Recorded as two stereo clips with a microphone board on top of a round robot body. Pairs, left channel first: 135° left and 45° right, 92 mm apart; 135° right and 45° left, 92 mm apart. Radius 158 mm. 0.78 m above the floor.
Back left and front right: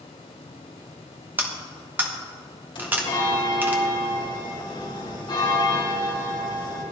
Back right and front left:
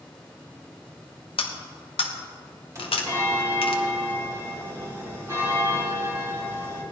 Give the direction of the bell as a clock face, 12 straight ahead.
9 o'clock.